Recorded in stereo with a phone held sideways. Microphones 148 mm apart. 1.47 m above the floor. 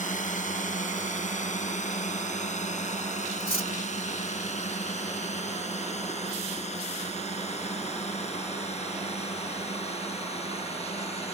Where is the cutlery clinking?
80° left.